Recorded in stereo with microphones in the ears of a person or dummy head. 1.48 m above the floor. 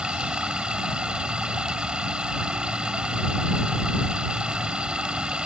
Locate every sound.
0.0 s running water: 5° right (ahead or behind)